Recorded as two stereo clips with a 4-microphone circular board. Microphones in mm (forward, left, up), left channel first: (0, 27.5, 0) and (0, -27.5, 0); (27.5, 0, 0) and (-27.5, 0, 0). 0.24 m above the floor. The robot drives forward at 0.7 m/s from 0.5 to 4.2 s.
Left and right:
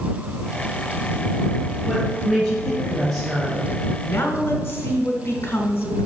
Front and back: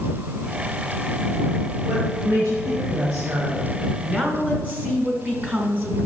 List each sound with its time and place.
1.9 s a woman speaking: 175° left, 3 m
4.0 s a woman speaking: 120° left, 1.6 m; by 6.1 s 125° left, 1.7 m